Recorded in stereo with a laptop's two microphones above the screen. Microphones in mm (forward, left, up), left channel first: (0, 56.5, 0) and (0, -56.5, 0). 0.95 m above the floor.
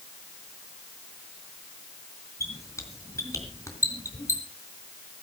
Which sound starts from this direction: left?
A squeak, at 2.4 s.